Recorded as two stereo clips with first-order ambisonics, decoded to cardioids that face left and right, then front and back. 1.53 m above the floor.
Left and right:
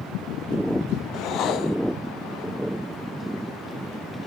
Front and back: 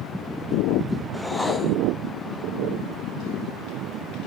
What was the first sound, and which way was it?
A whoosh, 80° left.